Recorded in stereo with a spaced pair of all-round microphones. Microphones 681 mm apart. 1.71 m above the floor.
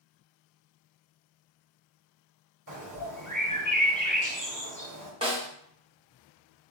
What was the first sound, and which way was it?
A bird, 25° right (ahead or behind).